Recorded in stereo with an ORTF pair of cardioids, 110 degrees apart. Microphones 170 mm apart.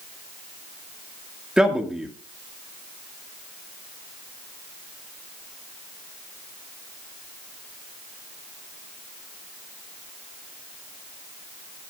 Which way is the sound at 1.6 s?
5° right.